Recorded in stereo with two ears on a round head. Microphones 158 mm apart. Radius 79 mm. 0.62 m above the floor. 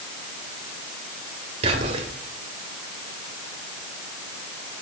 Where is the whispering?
35° right (ahead or behind), 2.5 m.